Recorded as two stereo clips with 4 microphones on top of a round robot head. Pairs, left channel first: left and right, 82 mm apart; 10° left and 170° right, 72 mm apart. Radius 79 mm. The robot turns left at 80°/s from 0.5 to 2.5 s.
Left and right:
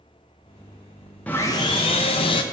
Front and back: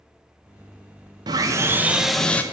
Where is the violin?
No violin in this recording.